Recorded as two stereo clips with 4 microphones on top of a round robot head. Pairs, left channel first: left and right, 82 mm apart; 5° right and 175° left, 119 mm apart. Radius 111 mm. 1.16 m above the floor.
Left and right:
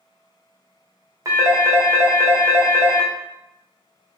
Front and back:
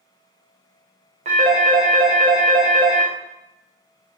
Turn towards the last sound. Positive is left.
turn(degrees=-140)